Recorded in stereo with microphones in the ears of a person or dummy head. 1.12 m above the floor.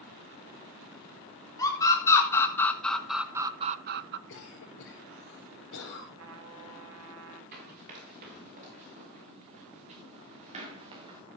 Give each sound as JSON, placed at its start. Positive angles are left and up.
{"t": 1.6, "sound": "a scream", "side_deg": 20, "distance_m": 2.5}
{"t": 4.3, "sound": "a cough", "side_deg": 70, "distance_m": 4.5}
{"t": 6.2, "sound": "a trumpet", "side_deg": -80, "distance_m": 2.5}
{"t": 7.5, "sound": "running footsteps", "side_deg": -45, "distance_m": 6.5}